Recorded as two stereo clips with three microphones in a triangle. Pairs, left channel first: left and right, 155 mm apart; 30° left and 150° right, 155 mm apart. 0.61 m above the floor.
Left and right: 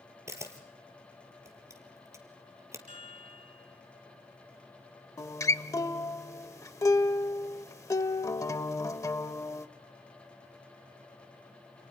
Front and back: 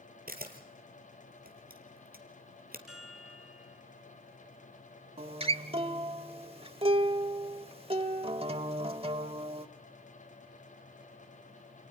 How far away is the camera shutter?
About 2.5 m.